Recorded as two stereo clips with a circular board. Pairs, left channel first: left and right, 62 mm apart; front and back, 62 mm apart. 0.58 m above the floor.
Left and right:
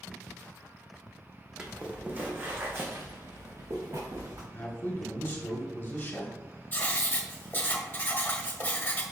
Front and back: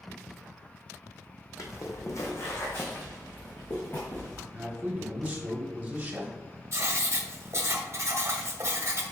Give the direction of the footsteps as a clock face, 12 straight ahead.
1 o'clock.